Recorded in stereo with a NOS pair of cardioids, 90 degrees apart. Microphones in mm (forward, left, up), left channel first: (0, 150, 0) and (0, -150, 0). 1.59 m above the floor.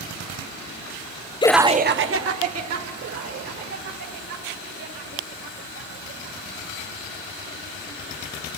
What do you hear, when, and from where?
1.4 s laughter: 20° left, 0.6 m; by 2.9 s 60° right, 2.5 m
3.0 s laughter: 55° right, 2.5 m